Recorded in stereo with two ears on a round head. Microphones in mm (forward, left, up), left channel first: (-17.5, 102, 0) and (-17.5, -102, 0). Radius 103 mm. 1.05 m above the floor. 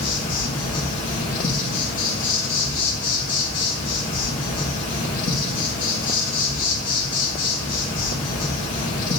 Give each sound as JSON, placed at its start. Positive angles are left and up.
{"t": 0.0, "sound": "an insect", "side_deg": 40, "distance_m": 2.5}